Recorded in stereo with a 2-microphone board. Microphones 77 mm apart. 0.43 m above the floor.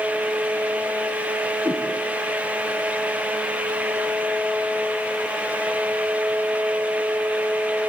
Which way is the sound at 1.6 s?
15° right (ahead or behind).